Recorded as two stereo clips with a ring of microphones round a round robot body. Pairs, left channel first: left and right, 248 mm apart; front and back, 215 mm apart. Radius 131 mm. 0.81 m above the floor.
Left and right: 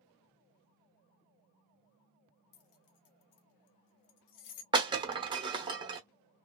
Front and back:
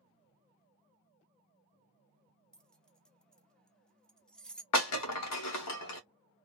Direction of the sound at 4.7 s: 20° right.